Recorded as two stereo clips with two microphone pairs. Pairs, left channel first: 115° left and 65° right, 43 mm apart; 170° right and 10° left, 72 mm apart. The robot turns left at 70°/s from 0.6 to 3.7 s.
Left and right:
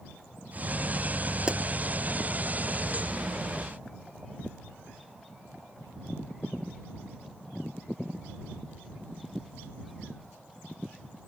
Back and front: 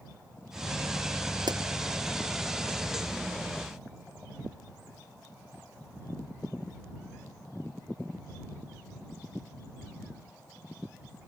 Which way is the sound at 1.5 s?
Straight ahead.